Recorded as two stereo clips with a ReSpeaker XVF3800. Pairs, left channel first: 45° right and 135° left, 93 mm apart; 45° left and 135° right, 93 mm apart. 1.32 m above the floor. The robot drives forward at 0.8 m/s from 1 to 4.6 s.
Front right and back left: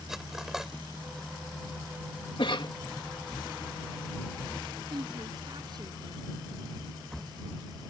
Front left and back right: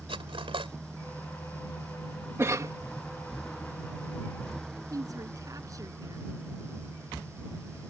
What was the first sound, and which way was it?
Cutlery clinking, 140° right.